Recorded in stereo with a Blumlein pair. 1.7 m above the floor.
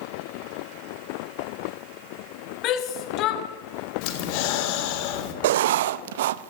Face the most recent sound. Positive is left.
turn(degrees=-55)